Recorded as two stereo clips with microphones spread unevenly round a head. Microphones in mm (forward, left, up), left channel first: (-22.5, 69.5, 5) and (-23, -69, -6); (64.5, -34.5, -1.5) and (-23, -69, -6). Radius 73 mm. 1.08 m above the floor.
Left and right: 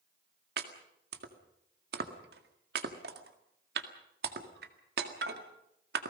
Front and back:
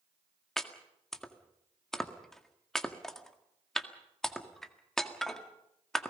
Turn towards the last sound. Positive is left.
turn(degrees=-65)